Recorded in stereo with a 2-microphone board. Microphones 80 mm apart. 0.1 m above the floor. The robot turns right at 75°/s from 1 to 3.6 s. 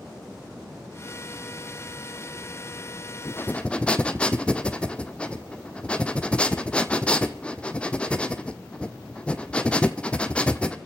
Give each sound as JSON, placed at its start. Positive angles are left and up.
{"t": 3.2, "sound": "breathing", "side_deg": 40, "distance_m": 1.0}